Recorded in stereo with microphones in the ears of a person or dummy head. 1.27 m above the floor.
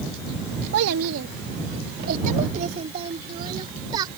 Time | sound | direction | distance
0.7 | a child speaking | 70° right (ahead or behind) | ?